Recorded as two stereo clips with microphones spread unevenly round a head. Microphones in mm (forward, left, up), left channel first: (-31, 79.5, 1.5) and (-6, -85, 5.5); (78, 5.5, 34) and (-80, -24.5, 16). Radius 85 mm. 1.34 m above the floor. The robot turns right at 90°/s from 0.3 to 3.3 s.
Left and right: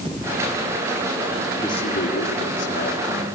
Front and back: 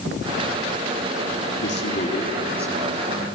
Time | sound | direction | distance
1.6 | a man speaking | 25° left | 3.5 m